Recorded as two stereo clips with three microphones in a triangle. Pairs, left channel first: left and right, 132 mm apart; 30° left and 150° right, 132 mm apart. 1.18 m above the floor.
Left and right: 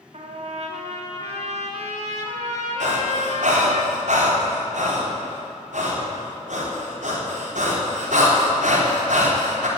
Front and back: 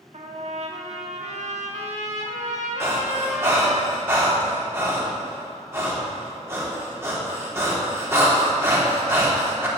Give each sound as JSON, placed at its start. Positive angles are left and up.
{"t": 0.1, "sound": "a trumpet", "azimuth_deg": -120, "distance_m": 2.5}
{"t": 2.8, "sound": "breathing", "azimuth_deg": -80, "distance_m": 4.0}